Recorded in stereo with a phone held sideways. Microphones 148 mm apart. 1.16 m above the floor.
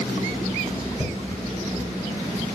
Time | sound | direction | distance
1.0 | a thud | 65° left (ahead or behind) | 6 m